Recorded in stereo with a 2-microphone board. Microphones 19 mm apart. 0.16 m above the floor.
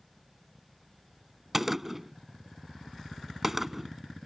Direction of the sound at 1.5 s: 10° right (ahead or behind).